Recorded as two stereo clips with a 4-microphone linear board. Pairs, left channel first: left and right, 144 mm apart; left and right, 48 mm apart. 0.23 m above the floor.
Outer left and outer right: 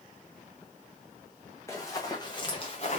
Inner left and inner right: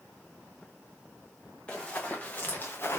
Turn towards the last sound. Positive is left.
turn(degrees=55)  # may be behind; listen again after turning